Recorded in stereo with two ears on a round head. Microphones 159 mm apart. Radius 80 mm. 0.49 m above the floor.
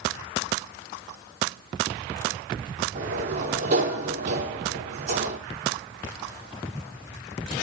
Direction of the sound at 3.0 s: 50° right (ahead or behind).